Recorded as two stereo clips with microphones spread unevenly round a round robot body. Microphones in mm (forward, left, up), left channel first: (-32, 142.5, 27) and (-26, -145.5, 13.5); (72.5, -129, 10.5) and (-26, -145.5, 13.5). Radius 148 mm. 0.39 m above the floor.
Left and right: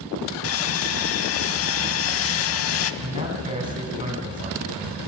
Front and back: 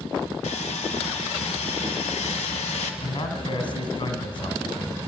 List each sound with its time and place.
0.4 s sawing: 45° left, 0.7 m
3.0 s a man speaking: 15° right, 3 m